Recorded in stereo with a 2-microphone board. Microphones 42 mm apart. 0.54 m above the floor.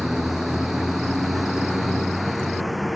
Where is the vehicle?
5° right (ahead or behind); by 3.0 s centre (ahead or behind).